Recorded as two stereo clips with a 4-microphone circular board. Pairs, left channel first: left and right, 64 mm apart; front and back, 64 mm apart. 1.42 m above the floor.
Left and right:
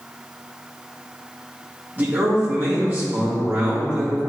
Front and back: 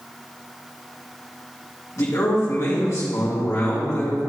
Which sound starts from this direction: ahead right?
A man speaking, at 2.0 s.